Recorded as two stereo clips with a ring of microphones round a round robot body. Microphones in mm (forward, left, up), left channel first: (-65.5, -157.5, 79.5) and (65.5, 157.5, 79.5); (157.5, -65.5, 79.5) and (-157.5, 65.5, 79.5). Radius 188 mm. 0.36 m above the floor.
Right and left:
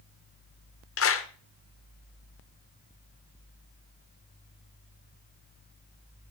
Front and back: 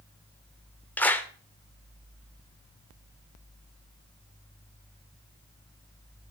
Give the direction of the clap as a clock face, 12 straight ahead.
4 o'clock.